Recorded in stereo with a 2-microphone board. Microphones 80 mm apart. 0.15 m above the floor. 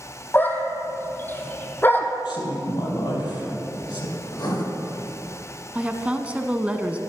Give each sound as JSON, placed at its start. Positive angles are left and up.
{"t": 0.3, "sound": "a dog barking", "side_deg": 25, "distance_m": 1.6}
{"t": 2.2, "sound": "a woman speaking", "side_deg": 65, "distance_m": 4.5}
{"t": 4.3, "sound": "writing", "side_deg": 65, "distance_m": 3.5}
{"t": 5.8, "sound": "a woman speaking", "side_deg": -15, "distance_m": 1.0}